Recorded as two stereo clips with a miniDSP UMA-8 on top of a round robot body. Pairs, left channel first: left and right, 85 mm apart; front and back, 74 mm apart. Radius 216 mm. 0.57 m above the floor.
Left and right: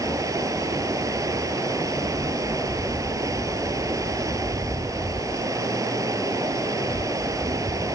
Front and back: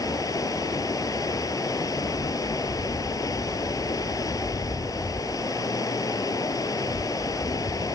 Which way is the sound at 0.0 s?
40° right.